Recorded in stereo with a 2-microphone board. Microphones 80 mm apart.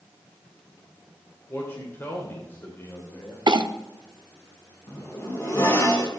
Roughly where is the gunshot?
No gunshot in this recording.